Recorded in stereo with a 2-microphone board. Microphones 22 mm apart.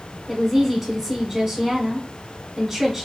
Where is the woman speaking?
15° right (ahead or behind), 1.1 m.